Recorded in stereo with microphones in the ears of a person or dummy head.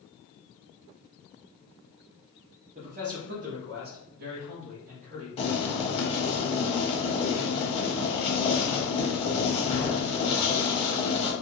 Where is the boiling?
35° left (ahead or behind), 1.0 m.